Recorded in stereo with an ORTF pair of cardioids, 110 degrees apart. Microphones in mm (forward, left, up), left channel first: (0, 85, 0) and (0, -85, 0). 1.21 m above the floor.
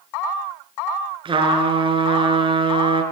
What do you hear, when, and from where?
1.2 s a trumpet: 30° right, 4.5 m